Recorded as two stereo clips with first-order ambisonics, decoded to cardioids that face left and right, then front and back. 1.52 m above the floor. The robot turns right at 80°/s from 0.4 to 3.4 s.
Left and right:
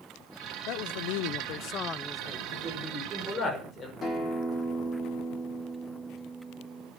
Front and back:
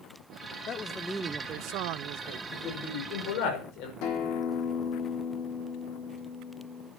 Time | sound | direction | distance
0.7 | a man speaking | 55° left | 0.7 m
2.5 | a man speaking | 55° right | 5.5 m
4.0 | a guitar | 20° left | 3.5 m